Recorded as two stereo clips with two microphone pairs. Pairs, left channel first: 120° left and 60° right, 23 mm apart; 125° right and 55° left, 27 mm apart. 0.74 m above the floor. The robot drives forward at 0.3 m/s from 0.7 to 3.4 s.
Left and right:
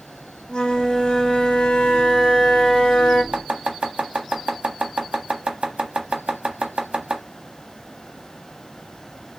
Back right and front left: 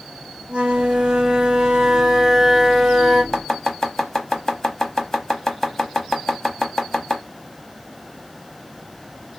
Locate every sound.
0.5 s a flute: 85° left, 0.7 m; by 3.2 s 140° left, 1.0 m
3.3 s chopping: 55° right, 0.6 m; by 7.2 s 60° right, 0.6 m